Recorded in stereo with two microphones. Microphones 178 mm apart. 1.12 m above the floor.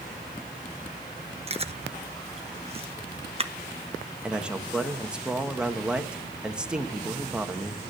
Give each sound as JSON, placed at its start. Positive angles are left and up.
{"t": 1.5, "sound": "chewing", "side_deg": -35, "distance_m": 0.9}
{"t": 4.2, "sound": "a man speaking", "side_deg": -5, "distance_m": 1.4}